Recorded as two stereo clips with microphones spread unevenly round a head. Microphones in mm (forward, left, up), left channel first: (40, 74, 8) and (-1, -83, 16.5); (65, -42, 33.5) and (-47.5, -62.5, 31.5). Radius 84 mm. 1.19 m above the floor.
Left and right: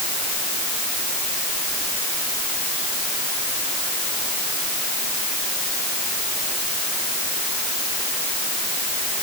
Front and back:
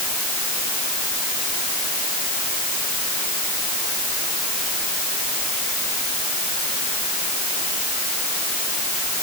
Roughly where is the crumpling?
I don't hear crumpling.